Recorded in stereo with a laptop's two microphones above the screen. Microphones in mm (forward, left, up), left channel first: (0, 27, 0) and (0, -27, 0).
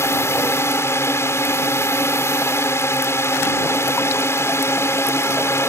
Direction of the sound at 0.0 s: 50° left (ahead or behind).